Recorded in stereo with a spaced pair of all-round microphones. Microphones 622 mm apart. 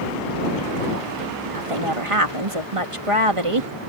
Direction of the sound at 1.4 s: 55° right (ahead or behind).